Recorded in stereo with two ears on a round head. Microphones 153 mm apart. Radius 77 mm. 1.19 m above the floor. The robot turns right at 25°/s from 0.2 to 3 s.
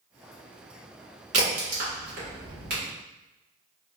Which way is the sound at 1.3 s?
45° right (ahead or behind).